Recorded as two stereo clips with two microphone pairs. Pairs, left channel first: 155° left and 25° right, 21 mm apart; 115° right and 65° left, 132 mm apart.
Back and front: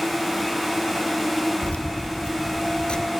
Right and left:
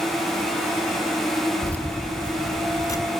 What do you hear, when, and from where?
1.6 s keys jangling: 170° left, 1.8 m; by 3.1 s 165° right, 1.2 m